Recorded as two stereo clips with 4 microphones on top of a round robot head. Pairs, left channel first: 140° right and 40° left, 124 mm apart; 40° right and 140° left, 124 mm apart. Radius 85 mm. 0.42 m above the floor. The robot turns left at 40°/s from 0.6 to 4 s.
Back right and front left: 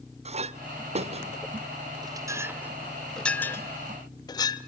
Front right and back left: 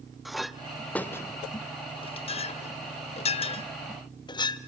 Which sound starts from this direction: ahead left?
A clink, at 0.2 s.